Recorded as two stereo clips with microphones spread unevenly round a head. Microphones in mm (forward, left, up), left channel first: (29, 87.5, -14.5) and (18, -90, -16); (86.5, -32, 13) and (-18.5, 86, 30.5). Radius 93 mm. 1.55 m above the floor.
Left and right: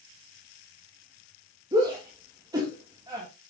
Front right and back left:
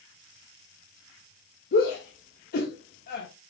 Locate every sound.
1.7 s a shout: 25° right, 3 m